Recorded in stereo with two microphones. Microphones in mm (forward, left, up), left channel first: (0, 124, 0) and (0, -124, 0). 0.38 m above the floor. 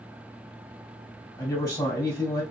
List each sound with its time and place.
1.4 s a man speaking: 10° left (ahead or behind), 2 m